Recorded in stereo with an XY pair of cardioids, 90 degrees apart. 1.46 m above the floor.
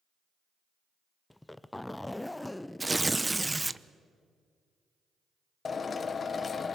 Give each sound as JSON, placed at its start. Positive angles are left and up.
{"t": 1.3, "sound": "a zipper", "azimuth_deg": 15, "distance_m": 0.6}
{"t": 2.8, "sound": "tearing paper", "azimuth_deg": -15, "distance_m": 0.7}
{"t": 5.7, "sound": "a drill", "azimuth_deg": 45, "distance_m": 1.2}